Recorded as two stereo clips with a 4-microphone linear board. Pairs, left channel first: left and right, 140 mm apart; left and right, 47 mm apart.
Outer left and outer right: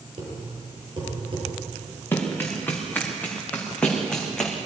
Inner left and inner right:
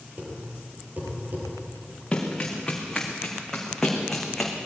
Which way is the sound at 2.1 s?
15° left (ahead or behind).